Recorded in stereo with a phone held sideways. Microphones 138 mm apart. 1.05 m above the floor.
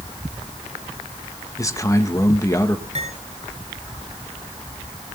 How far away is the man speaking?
About 1.5 m.